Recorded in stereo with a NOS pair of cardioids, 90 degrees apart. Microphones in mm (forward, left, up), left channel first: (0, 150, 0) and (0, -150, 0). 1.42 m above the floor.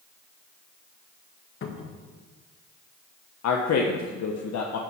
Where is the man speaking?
60° left, 1.2 m.